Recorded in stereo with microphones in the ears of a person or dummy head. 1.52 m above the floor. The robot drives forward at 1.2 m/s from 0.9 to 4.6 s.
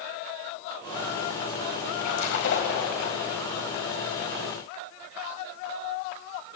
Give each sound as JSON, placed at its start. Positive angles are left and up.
{"t": 2.0, "sound": "a splash", "side_deg": 70, "distance_m": 4.0}